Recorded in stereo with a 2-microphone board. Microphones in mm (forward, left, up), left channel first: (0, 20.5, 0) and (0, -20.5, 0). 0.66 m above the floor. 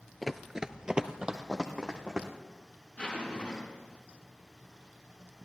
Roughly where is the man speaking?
I don't hear a man speaking.